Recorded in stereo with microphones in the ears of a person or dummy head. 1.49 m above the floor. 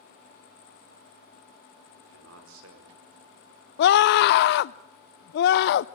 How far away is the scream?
About 0.6 m.